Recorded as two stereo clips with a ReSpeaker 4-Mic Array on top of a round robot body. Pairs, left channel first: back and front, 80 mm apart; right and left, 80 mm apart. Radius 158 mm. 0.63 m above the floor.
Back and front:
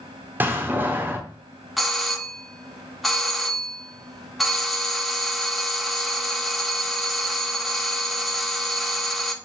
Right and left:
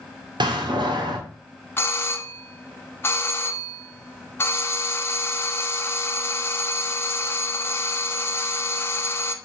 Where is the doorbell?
90° right, 1.2 m.